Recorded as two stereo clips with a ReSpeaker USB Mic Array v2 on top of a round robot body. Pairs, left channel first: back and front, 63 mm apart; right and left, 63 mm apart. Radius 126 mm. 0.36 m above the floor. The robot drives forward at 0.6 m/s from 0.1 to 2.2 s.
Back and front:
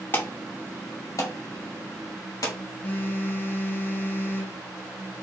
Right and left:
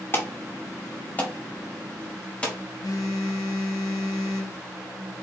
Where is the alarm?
130° right, 1.2 m; by 2.5 s 160° right, 2 m.